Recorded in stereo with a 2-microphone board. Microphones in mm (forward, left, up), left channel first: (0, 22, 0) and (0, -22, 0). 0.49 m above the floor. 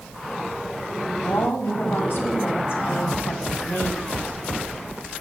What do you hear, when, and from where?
1.2 s a woman speaking: 65° left (ahead or behind), 3 m